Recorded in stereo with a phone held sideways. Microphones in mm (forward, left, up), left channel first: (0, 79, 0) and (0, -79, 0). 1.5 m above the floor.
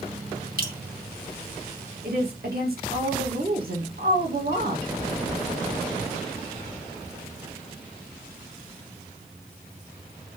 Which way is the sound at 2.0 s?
70° right (ahead or behind).